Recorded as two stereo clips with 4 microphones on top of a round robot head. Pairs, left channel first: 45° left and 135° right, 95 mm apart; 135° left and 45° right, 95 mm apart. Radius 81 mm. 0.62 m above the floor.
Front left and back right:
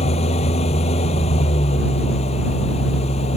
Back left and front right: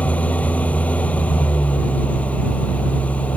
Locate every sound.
0.0 s an engine running: 55° left